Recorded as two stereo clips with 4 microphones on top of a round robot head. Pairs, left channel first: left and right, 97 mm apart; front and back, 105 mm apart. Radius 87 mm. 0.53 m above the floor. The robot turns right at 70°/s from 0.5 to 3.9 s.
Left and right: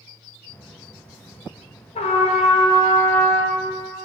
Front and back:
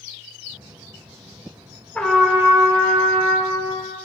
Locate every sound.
1.9 s a trumpet: 75° left, 1.1 m; by 3.6 s 170° right, 1.1 m